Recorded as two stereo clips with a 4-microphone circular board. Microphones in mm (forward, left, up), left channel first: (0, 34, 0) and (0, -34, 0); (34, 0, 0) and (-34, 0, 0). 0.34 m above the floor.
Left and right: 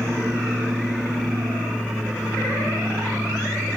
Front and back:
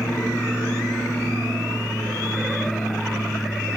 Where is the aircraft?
30° right.